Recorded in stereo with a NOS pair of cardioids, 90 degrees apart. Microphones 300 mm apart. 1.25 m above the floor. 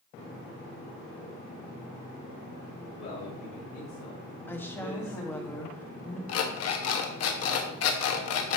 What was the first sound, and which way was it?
A man speaking, 50° left.